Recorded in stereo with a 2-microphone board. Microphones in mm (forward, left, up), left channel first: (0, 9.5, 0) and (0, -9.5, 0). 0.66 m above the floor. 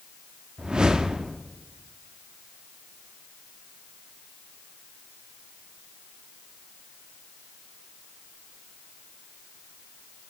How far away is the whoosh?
About 0.6 m.